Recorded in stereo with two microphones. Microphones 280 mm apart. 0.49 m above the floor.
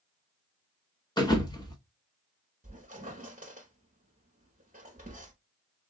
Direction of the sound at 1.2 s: 15° left (ahead or behind).